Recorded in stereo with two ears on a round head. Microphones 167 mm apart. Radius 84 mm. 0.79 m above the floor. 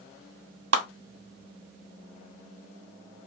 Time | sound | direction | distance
0.7 | a clap | 70° right (ahead or behind) | 1.8 m